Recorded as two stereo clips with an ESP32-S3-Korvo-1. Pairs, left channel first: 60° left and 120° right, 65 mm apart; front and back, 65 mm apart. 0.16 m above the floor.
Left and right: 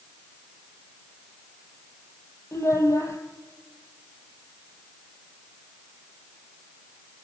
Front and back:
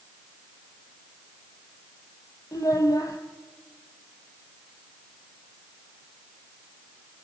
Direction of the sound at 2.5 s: 20° left.